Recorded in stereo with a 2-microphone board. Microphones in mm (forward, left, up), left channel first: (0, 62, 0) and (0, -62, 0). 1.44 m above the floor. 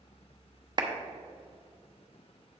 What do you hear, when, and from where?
0.8 s a clap: 40° right (ahead or behind), 0.9 m